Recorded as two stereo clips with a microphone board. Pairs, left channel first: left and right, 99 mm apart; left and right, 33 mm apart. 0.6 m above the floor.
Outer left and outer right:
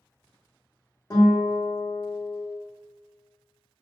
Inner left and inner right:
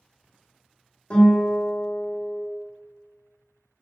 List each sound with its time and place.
1.1 s a guitar: 35° left (ahead or behind), 1.1 m